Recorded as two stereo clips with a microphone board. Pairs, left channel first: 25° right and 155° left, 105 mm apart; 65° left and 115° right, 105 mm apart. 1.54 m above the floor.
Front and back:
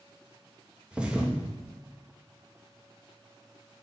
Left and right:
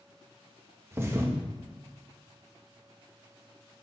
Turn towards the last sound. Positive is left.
turn(degrees=-135)